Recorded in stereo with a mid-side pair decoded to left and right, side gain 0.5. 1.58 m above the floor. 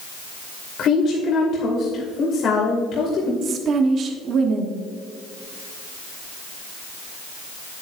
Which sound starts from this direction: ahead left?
A woman speaking, at 0.8 s.